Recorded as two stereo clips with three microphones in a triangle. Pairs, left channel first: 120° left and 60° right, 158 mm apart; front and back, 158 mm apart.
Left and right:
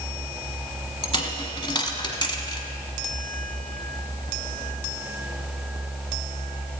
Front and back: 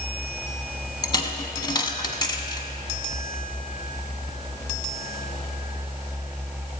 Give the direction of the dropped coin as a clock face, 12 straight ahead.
10 o'clock.